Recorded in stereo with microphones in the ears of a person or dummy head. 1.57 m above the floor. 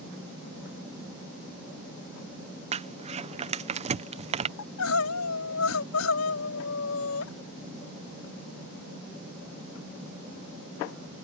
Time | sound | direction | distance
2.7 | crumpling | 35° right (ahead or behind) | ?
4.6 | crying | 90° left | ?